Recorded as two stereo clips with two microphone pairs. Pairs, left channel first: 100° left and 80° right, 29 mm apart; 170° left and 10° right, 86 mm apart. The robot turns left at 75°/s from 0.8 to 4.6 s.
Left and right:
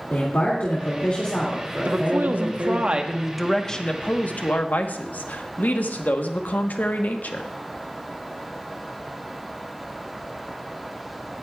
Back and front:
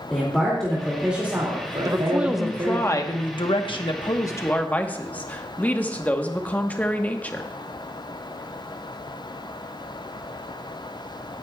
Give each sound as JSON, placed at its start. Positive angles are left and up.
{"t": 0.1, "sound": "a man speaking", "azimuth_deg": 90, "distance_m": 2.0}
{"t": 1.9, "sound": "a woman speaking", "azimuth_deg": -55, "distance_m": 1.1}